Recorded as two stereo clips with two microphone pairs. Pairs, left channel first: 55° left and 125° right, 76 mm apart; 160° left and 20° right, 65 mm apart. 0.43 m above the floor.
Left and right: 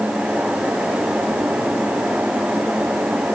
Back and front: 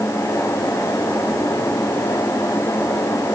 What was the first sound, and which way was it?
Only background noise.